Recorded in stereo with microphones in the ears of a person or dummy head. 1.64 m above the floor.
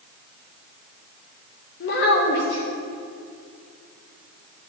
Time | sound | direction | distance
1.8 | a child speaking | 60° left (ahead or behind) | 1.2 m